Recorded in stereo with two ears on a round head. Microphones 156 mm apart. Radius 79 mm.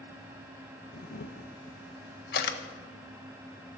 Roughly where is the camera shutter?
Left.